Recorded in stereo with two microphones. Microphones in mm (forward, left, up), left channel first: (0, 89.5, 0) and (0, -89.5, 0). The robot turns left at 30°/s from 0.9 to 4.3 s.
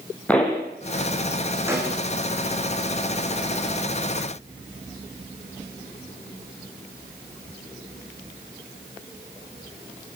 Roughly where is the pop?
Centre.